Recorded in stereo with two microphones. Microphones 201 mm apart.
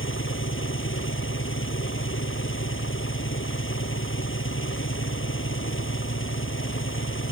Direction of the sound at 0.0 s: 80° left.